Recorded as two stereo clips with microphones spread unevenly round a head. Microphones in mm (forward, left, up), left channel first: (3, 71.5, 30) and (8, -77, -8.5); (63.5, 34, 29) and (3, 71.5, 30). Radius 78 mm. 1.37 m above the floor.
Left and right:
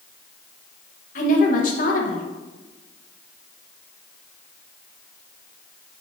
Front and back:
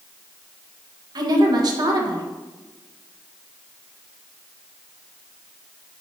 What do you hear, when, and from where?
1.1 s a woman speaking: 130° left, 1.4 m